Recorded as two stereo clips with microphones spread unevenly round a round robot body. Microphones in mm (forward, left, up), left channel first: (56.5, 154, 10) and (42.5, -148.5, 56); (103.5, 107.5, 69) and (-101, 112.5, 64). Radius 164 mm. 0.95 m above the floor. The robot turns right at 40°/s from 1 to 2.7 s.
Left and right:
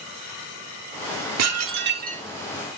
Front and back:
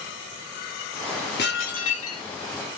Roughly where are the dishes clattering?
Ahead right.